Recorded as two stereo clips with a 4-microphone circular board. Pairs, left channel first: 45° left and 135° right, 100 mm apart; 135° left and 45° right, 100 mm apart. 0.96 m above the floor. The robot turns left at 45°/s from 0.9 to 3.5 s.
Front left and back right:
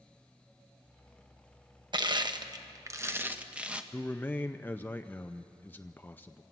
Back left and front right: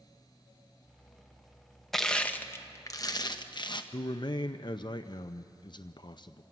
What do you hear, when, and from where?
1.9 s crushing: 140° right, 0.9 m; by 3.8 s 150° left, 0.9 m
3.9 s a man speaking: 110° left, 0.5 m